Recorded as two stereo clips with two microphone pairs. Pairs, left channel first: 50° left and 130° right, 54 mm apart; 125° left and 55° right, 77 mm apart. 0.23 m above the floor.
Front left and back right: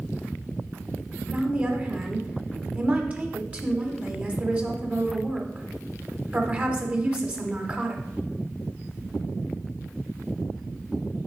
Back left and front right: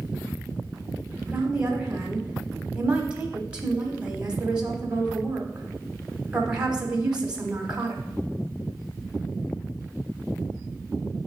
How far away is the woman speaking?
About 1.1 m.